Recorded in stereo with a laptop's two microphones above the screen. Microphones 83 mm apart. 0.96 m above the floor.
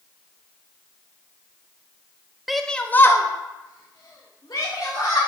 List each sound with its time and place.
2.5 s a shout: centre (ahead or behind), 0.7 m; by 5.2 s 65° left (ahead or behind), 1.7 m